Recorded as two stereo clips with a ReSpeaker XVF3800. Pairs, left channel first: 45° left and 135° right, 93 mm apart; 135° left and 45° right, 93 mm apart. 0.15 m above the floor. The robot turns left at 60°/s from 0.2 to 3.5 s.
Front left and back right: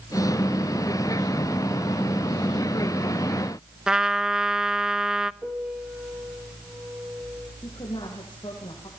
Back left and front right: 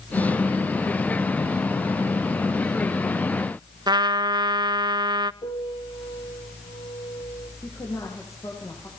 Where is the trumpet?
55° right, 0.5 m.